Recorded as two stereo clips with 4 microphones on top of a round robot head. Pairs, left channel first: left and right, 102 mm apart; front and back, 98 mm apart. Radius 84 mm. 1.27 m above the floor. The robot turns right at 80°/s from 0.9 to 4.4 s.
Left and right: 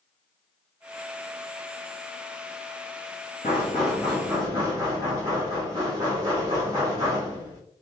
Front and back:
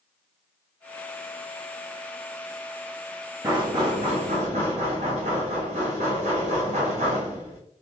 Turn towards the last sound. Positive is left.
turn(degrees=-155)